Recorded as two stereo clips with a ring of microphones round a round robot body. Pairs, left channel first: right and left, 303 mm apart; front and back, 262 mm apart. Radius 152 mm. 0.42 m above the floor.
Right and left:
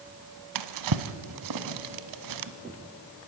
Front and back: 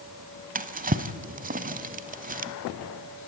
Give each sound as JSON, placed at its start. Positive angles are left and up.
{"t": 0.6, "sound": "a drawer", "azimuth_deg": 120, "distance_m": 1.0}